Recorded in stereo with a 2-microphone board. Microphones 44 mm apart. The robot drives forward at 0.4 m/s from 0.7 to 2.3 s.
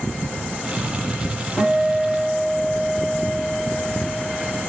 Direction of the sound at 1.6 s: 35° left (ahead or behind).